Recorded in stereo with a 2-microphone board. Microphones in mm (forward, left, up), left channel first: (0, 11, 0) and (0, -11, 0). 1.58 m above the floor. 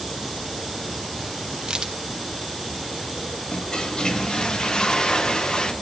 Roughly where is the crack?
Right.